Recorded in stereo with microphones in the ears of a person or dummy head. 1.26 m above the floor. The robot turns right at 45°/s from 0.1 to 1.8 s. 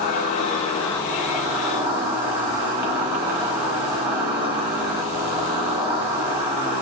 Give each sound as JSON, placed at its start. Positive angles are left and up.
{"t": 0.0, "sound": "an insect", "azimuth_deg": 125, "distance_m": 1.1}